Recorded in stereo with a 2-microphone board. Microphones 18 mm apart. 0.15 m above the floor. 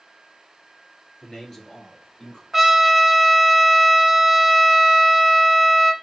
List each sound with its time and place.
1.2 s a man speaking: 20° left (ahead or behind), 2 m; by 2.4 s 30° left (ahead or behind), 1.8 m
2.5 s a trumpet: 15° right (ahead or behind), 0.7 m